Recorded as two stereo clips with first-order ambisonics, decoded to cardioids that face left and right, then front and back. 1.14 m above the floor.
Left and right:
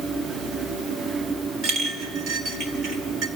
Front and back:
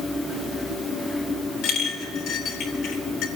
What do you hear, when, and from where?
1.6 s a clink: 40° right, 3 m